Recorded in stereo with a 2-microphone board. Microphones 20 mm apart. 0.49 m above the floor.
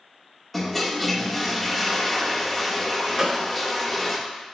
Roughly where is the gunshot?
Centre.